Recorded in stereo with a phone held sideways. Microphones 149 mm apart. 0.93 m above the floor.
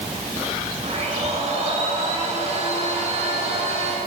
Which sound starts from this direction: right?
A blender, at 0.8 s.